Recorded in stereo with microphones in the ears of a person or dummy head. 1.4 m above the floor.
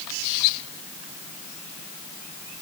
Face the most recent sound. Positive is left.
No sound to turn to.